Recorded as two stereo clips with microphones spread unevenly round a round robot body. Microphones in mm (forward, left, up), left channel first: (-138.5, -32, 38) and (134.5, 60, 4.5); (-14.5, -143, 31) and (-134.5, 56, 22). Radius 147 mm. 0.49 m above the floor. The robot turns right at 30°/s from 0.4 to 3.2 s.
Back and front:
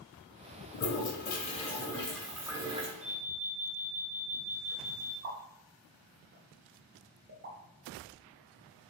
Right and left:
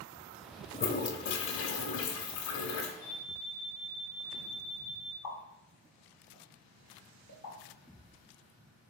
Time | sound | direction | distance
0.7 | a toilet flushing | 115° right | 0.5 m
3.0 | an alarm | 5° left | 0.8 m
5.2 | a pop | 30° right | 0.7 m